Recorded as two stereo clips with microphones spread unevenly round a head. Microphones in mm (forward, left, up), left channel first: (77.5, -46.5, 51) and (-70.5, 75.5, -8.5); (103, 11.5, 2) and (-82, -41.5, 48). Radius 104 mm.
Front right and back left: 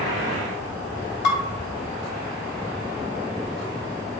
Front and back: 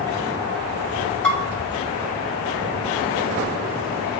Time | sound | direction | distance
1.2 | dishes clattering | 70° right | 2 m